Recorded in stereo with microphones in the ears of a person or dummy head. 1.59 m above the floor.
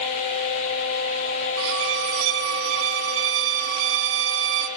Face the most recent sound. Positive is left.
turn(degrees=-65)  # may be behind; listen again after turning